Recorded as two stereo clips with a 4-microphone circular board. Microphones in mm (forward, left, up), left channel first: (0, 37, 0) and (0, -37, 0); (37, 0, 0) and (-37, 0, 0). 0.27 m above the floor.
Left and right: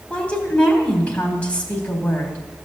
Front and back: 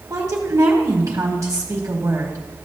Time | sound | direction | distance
0.1 | a woman speaking | 155° left | 1.6 m